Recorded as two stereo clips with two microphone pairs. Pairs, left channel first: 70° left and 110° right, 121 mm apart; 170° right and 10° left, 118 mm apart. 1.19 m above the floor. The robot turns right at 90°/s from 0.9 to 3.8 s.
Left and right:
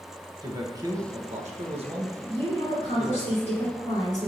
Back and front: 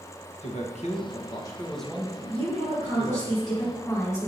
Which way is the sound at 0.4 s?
165° right.